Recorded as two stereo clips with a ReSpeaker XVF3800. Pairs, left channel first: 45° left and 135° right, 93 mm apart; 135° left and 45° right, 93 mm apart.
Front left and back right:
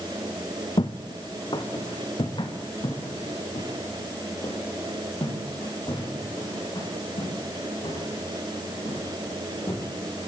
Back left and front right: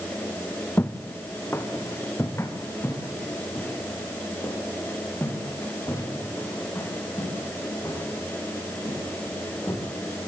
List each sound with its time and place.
0.8 s footsteps: 70° left, 1.9 m; by 9.8 s 75° left, 12 m